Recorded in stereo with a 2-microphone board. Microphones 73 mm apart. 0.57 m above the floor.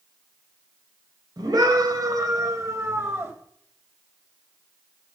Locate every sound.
1.4 s a scream: 65° right (ahead or behind), 3.5 m; by 3.3 s 35° right (ahead or behind), 3.5 m